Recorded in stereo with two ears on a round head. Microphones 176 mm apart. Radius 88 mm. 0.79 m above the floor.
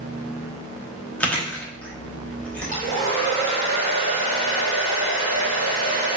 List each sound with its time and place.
1.2 s chewing: 5° left (ahead or behind), 0.7 m
2.7 s a hair dryer: 45° right (ahead or behind), 1.8 m